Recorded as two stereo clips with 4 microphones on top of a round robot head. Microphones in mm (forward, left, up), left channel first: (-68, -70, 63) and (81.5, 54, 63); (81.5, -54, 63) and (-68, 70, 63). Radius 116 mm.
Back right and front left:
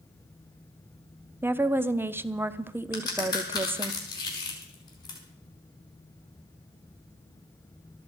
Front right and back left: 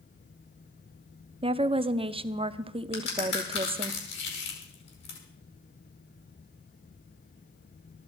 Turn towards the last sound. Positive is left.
turn(degrees=-70)